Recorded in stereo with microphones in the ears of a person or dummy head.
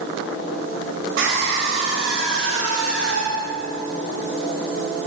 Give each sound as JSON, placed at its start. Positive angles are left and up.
{"t": 1.2, "sound": "a scream", "side_deg": -85, "distance_m": 7.5}